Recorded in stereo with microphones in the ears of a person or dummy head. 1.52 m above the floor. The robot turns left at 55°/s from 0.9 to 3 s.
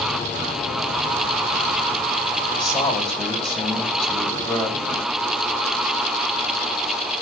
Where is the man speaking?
35° left (ahead or behind), 9.5 m; by 5.1 s 10° left (ahead or behind), 9.5 m.